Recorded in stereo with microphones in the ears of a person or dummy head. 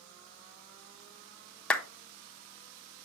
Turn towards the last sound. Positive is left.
turn(degrees=10)  # may be behind; listen again after turning